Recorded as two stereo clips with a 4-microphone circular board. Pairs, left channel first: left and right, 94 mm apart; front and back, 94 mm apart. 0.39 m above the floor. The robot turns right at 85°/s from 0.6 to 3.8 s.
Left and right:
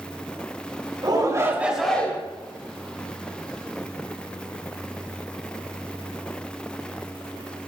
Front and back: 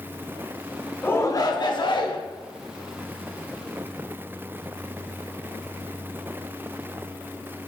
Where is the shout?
70° right, 1.3 m; by 2.2 s 30° left, 1.3 m.